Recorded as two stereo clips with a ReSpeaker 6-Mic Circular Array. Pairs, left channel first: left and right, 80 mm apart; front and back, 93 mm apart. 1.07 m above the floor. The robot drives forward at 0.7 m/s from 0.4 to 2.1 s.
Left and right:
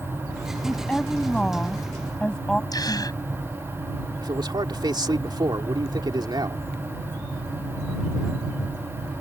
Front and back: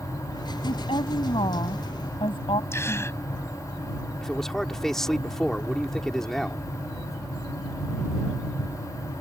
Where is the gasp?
60° left.